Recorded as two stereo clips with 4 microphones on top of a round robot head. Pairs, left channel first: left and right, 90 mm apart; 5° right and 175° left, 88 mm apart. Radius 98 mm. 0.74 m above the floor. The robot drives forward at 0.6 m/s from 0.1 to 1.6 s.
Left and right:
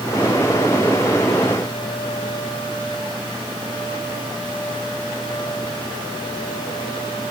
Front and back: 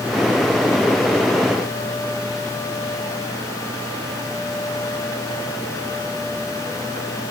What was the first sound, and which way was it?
Only background noise.